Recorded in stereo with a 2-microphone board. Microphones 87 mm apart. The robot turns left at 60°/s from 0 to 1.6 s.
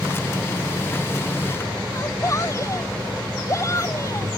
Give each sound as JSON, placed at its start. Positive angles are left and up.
{"t": 1.9, "sound": "a shout", "side_deg": 35}